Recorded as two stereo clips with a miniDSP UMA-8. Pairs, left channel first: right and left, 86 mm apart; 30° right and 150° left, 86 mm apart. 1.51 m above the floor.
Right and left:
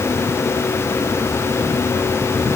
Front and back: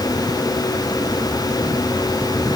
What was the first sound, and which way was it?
Only background noise.